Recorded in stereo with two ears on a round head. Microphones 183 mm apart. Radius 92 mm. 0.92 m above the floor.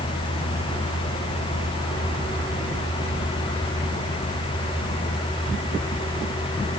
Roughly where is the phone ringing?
I don't hear a phone ringing.